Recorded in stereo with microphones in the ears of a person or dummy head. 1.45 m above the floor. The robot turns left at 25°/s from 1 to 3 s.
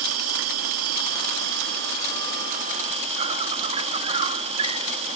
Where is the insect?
95° right; by 5.2 s 145° right.